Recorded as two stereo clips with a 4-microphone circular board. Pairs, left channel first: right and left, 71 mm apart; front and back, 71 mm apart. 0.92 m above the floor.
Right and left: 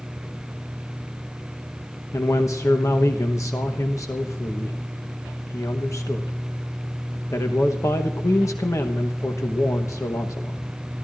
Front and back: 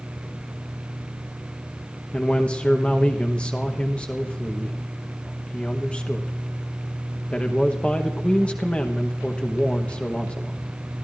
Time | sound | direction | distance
2.1 | a man speaking | 70° right | 1.0 m